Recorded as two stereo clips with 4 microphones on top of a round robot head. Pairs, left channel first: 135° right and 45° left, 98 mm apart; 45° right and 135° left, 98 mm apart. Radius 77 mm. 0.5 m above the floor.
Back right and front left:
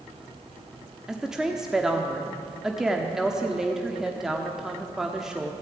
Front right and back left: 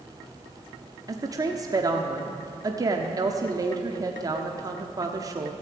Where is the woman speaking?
130° left, 1.2 m.